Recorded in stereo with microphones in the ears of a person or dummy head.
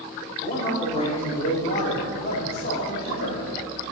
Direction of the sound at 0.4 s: 35° left (ahead or behind).